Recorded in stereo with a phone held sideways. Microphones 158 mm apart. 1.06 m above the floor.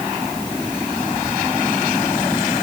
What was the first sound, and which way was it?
Only background noise.